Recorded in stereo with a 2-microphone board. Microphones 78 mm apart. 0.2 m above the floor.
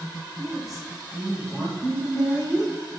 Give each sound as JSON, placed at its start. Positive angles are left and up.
{"t": 0.4, "sound": "a woman speaking", "side_deg": -5, "distance_m": 1.1}